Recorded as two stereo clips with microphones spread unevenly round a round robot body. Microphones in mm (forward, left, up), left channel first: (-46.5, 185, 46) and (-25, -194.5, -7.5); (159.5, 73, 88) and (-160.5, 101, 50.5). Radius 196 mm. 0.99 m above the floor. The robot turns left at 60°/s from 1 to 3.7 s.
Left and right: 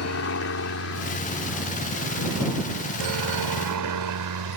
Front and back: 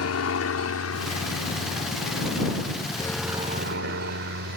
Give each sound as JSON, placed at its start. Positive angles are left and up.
{"t": 0.0, "sound": "a helicopter", "azimuth_deg": 35}